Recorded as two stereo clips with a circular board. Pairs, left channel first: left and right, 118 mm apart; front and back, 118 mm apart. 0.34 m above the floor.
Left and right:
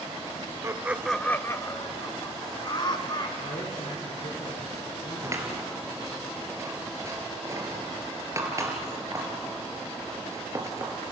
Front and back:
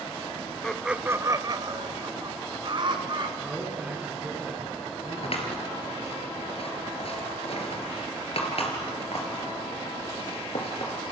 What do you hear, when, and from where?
0.6 s laughter: 75° right, 0.9 m; by 3.3 s 140° left, 3.5 m
3.4 s a man speaking: 100° left, 7.5 m
5.2 s scissors: 25° right, 3.5 m